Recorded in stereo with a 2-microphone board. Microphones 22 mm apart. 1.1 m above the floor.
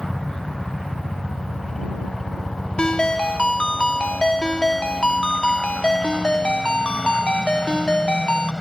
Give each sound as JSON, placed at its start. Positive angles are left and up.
{"t": 0.0, "sound": "a helicopter", "side_deg": 25}
{"t": 2.8, "sound": "a ringtone", "side_deg": 55}